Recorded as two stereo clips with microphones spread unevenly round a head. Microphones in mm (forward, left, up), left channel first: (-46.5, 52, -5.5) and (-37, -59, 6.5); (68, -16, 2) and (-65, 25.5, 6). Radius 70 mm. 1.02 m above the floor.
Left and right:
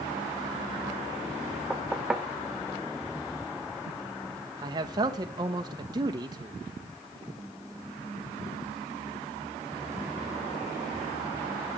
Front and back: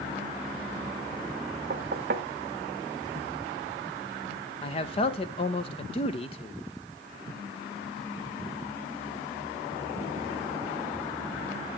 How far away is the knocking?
About 0.7 m.